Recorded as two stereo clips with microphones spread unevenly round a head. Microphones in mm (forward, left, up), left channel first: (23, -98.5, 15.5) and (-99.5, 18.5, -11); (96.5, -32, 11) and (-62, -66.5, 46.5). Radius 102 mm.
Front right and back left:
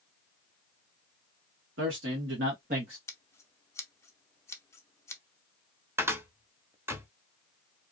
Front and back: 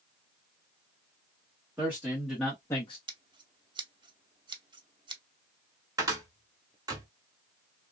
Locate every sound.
1.8 s a man speaking: 110° left, 1.4 m; by 3.0 s 65° left, 0.5 m
3.1 s scissors: 115° right, 0.7 m
6.0 s a cupboard door: 145° right, 0.8 m